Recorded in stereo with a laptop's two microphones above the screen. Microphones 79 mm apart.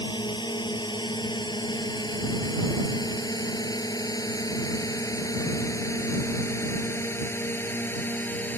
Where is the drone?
75° left (ahead or behind); by 8.6 s 25° left (ahead or behind).